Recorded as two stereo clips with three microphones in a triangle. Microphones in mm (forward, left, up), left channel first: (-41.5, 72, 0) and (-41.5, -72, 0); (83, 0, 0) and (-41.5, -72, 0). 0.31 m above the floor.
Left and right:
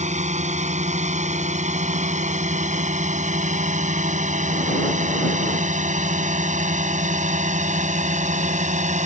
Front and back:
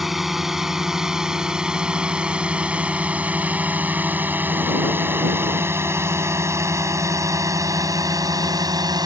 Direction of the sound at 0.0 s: 60° right.